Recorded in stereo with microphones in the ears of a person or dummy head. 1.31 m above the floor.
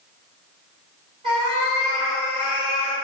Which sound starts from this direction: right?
A cat meowing, at 1.2 s.